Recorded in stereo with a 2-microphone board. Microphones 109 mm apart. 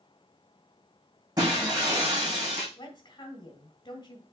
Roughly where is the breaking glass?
Right.